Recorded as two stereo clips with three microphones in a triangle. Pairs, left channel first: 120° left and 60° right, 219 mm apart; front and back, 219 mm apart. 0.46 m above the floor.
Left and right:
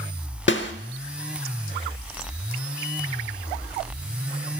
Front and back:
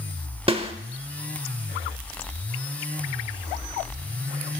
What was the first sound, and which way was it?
A snare drum, 120° left.